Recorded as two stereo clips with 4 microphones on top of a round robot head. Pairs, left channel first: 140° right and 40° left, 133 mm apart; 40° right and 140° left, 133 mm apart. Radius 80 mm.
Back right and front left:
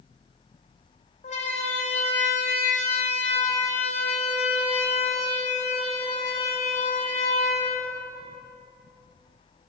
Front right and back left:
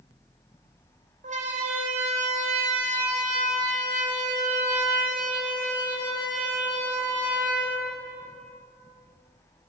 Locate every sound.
1.2 s a siren: straight behind, 5 m; by 8.4 s 175° left, 9 m